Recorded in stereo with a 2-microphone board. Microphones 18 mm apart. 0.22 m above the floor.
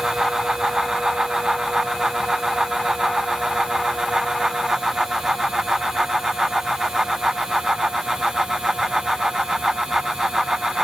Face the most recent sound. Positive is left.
No sound to turn to.